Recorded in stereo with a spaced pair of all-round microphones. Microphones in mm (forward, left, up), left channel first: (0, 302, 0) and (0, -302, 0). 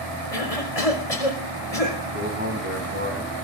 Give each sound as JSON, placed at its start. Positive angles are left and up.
{"t": 0.3, "sound": "a cough", "side_deg": 70, "distance_m": 5.5}
{"t": 2.1, "sound": "a man speaking", "side_deg": -15, "distance_m": 9.0}